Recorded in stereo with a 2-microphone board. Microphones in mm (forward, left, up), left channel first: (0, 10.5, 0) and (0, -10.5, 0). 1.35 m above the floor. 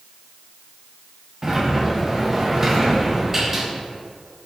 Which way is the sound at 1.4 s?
20° right (ahead or behind).